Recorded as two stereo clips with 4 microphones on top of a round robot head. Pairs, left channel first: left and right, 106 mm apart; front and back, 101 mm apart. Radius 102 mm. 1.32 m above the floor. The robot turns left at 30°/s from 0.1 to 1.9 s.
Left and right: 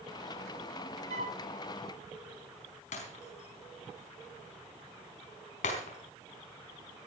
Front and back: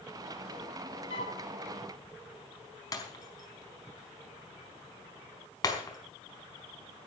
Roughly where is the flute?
Ahead right.